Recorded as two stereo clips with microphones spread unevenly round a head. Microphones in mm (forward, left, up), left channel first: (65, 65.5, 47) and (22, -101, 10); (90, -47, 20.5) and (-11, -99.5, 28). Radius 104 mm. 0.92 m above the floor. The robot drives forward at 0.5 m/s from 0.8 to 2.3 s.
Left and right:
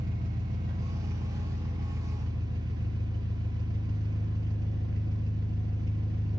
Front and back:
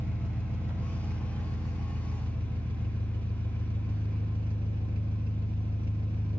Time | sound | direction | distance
0.0 | an engine running | 80° right | 1.5 m